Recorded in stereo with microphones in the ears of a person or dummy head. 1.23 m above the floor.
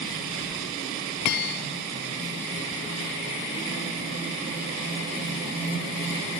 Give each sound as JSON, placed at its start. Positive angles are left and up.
{"t": 1.3, "sound": "a bell", "side_deg": 55, "distance_m": 1.7}